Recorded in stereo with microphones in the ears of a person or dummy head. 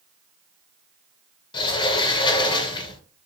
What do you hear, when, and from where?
1.5 s a sliding door: 25° left (ahead or behind), 0.6 m